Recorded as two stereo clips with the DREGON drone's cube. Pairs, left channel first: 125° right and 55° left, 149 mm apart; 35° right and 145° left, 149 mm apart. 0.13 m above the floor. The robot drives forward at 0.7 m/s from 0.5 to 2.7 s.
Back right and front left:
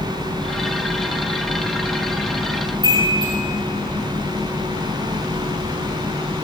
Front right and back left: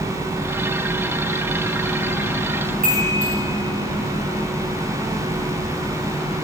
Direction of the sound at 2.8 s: 120° left.